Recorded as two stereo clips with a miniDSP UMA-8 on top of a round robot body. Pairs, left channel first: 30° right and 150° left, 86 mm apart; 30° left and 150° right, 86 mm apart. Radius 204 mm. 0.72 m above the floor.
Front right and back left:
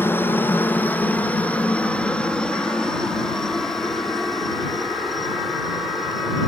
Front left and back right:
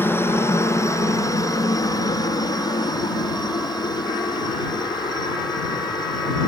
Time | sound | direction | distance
0.0 | a helicopter | 5° left | ?